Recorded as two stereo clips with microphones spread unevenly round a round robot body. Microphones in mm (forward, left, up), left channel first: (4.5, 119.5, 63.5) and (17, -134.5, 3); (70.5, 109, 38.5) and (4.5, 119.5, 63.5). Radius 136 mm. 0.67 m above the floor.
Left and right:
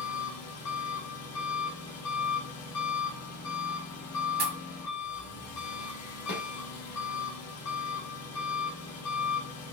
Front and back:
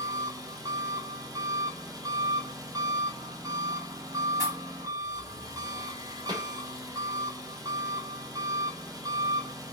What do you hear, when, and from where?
0.0 s an engine running: 130° left, 1.1 m
4.4 s a pop: 125° right, 1.3 m
6.3 s a snare drum: 150° left, 2 m